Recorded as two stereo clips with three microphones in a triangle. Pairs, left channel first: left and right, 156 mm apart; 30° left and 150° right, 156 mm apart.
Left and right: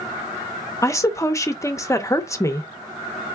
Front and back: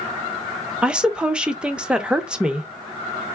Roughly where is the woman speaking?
Behind left.